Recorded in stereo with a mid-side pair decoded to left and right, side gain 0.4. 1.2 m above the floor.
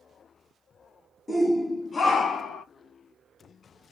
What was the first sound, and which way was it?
A shout, 20° left.